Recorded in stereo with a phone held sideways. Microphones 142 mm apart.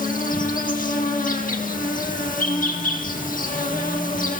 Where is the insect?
70° left (ahead or behind), 1.8 m.